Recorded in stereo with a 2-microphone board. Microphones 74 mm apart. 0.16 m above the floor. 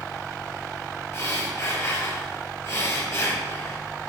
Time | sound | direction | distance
1.1 | breathing | 40° left (ahead or behind) | 3 m